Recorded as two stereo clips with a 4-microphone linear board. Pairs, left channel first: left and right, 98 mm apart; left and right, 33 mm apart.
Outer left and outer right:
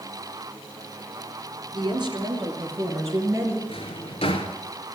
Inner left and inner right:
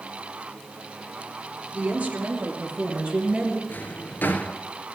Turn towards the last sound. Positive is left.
turn(degrees=75)  # may be behind; listen again after turning